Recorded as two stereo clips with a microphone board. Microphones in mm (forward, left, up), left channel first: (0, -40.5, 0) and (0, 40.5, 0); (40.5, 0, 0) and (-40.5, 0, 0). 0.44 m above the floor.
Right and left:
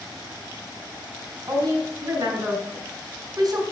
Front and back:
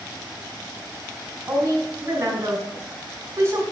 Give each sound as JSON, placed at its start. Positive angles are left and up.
{"t": 1.5, "sound": "a woman speaking", "azimuth_deg": 125, "distance_m": 4.0}